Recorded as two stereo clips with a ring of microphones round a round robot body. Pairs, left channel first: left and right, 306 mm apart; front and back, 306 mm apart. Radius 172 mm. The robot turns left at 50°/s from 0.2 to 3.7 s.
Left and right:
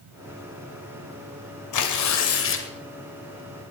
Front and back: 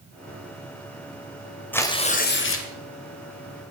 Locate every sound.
1.7 s tearing paper: 85° left, 2.5 m; by 2.7 s 35° left, 2.5 m